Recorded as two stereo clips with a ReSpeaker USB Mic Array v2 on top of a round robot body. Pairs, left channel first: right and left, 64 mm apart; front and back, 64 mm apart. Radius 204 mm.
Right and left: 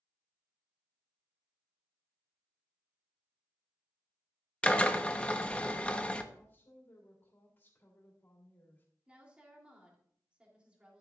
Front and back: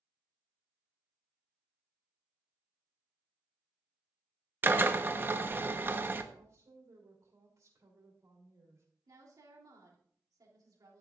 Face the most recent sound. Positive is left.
turn(degrees=160)